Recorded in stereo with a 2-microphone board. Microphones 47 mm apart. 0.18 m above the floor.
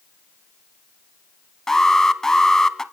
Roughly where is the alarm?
Centre.